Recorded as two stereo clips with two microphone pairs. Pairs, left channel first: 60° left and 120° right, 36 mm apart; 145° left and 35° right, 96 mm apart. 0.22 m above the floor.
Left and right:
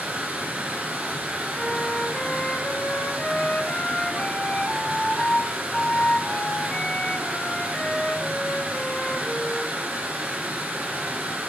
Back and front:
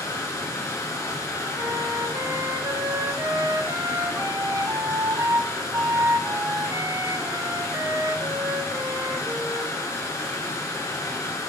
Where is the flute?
10° left, 0.7 m.